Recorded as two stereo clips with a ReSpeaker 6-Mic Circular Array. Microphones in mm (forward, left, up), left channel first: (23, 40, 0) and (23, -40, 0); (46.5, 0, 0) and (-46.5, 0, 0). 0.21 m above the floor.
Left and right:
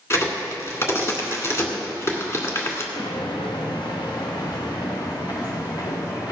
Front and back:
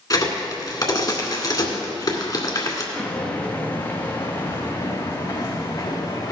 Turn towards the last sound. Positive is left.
turn(degrees=50)